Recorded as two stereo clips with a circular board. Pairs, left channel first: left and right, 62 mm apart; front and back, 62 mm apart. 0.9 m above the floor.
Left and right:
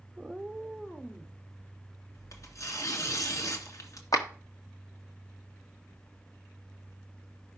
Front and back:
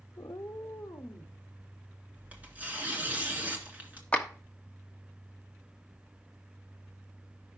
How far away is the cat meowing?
About 0.5 m.